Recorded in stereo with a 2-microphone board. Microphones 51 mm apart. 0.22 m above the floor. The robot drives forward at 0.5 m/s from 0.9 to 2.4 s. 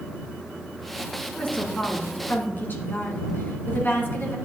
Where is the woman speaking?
35° left (ahead or behind), 2.5 m; by 4.3 s 45° left (ahead or behind), 2.5 m.